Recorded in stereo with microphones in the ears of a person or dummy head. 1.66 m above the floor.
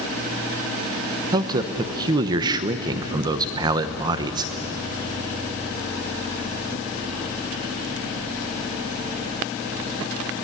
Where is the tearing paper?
I don't hear tearing paper.